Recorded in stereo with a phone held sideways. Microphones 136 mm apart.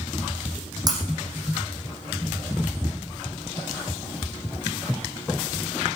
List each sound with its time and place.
0.9 s breaking glass: 30° right (ahead or behind), 5.5 m